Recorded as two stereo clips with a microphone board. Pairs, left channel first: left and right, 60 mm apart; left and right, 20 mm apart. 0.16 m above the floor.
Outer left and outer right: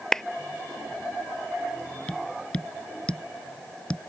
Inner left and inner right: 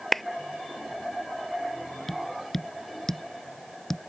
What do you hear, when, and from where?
0.1 s a clap: 5° left (ahead or behind)
2.1 s tapping: 20° left (ahead or behind)